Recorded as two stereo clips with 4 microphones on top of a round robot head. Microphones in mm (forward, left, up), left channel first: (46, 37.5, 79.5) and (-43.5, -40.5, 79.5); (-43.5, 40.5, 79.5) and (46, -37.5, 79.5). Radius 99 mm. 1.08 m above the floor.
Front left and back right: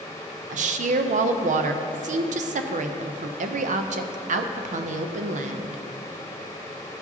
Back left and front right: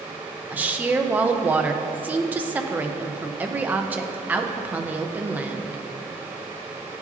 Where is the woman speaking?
120° right, 0.5 m.